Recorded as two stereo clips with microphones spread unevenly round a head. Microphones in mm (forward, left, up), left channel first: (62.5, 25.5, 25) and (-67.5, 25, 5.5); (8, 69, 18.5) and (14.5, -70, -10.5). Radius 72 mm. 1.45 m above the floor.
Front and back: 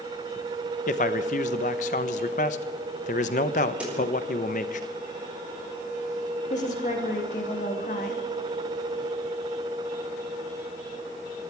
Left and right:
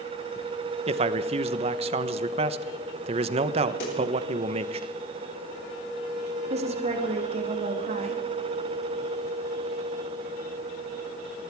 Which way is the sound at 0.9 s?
35° right.